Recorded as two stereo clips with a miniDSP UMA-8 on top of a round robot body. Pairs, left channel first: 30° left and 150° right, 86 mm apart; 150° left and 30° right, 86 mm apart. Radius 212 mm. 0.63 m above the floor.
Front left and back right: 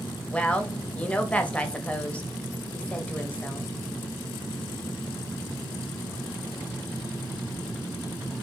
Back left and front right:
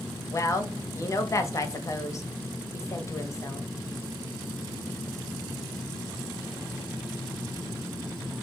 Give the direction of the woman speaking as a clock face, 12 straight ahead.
9 o'clock.